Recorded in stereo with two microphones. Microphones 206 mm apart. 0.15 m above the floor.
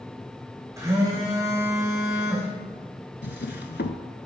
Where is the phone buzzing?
15° right (ahead or behind), 2.5 m.